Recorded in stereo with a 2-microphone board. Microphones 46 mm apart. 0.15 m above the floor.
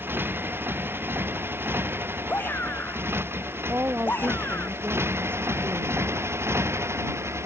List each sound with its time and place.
0.0 s a motorcycle: 45° right (ahead or behind); by 7.5 s 65° right (ahead or behind)
2.3 s a shout: 45° left (ahead or behind)
3.7 s a woman speaking: 45° right (ahead or behind)